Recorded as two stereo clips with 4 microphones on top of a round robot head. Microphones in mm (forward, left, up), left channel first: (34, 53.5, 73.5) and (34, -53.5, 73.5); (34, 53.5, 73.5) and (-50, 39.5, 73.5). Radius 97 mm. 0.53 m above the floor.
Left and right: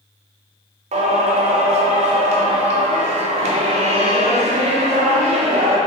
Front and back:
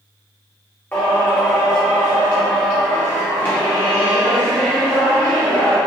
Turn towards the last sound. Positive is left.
turn(degrees=-65)